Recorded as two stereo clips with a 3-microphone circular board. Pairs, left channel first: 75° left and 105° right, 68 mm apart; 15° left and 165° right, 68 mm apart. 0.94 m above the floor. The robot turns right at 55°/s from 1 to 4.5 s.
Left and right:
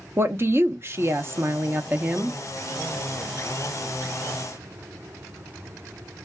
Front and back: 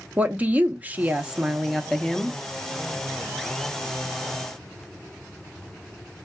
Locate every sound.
0.2 s a woman speaking: 115° right, 0.6 m; by 2.4 s 40° right, 0.6 m